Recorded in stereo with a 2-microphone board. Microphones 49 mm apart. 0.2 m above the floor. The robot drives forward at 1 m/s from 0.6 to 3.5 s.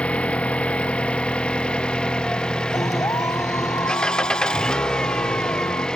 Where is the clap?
75° left (ahead or behind); by 5.9 s 80° left.